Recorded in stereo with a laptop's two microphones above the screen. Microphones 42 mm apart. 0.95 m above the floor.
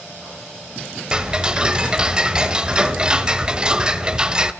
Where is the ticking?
20° right (ahead or behind), 1.2 m.